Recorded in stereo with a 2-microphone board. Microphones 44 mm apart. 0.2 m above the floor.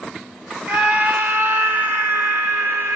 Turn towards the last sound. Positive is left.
turn(degrees=-60)  # may be behind; listen again after turning